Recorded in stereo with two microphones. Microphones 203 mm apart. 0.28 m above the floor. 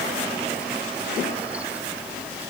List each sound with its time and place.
Only background noise.